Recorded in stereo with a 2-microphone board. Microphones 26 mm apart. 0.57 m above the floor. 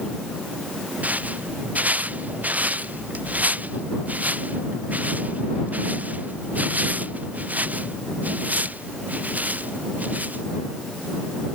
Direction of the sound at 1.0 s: 70° right (ahead or behind).